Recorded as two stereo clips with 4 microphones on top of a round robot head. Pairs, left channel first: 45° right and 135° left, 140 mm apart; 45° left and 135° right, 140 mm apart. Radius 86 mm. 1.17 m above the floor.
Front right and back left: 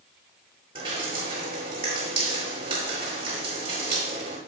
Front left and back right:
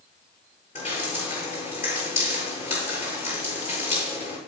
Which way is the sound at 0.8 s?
85° left.